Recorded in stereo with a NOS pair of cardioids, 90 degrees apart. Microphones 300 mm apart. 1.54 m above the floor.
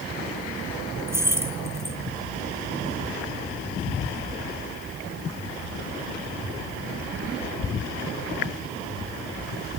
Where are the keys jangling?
10° right, 1.2 m.